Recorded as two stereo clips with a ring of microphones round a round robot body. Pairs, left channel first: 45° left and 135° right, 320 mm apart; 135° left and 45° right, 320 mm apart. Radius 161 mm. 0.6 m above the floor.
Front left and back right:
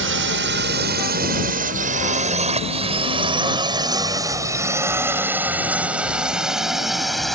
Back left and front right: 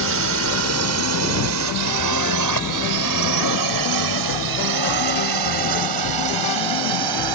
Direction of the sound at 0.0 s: 90° right.